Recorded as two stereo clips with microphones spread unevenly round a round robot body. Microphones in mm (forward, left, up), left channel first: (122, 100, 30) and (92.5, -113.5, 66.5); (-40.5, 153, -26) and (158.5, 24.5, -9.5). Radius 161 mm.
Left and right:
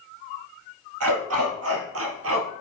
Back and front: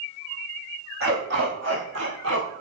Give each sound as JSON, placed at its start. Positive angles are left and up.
{"t": 1.0, "sound": "a dog barking", "azimuth_deg": -95, "distance_m": 3.5}